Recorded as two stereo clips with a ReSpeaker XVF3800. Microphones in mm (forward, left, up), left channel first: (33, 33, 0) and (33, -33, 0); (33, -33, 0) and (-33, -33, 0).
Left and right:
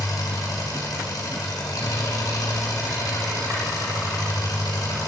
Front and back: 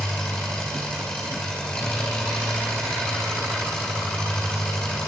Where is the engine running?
75° left, 3 m.